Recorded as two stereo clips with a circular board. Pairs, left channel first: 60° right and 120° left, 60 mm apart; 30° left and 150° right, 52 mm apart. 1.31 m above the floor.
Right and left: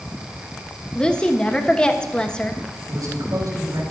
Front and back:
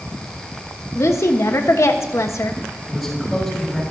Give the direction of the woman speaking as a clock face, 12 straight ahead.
12 o'clock.